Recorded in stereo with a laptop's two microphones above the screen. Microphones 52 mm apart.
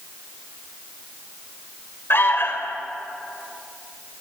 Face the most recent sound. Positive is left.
turn(degrees=50)  # may be behind; listen again after turning